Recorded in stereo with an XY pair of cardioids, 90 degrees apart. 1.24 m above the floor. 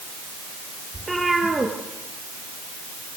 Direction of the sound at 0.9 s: 20° right.